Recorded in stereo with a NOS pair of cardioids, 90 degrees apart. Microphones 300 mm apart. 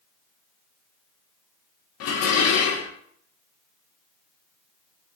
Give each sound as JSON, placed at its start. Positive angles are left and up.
{"t": 2.0, "sound": "dishes clattering", "azimuth_deg": 55, "distance_m": 0.5}